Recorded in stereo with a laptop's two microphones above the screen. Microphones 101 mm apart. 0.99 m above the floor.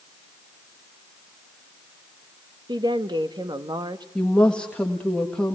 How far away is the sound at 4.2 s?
About 1.6 m.